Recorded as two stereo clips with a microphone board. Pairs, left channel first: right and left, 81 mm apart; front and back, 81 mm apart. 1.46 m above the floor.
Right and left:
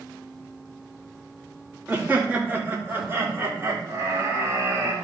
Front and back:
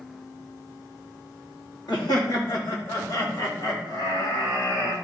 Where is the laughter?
20° left, 2.5 m; by 5.0 s 35° left, 4 m.